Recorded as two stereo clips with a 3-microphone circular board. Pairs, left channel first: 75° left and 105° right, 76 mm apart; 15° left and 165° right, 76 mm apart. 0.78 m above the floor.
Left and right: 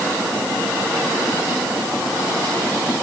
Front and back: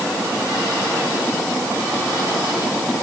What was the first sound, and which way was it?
Only background noise.